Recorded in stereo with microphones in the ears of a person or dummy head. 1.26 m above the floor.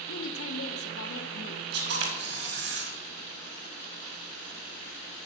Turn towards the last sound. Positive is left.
turn(degrees=-70)  # may be behind; listen again after turning